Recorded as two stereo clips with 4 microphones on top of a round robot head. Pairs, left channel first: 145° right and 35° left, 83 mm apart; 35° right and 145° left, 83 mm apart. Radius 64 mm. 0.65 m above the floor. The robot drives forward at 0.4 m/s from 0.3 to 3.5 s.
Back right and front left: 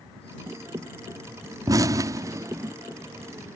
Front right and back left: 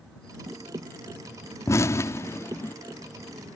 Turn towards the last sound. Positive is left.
turn(degrees=10)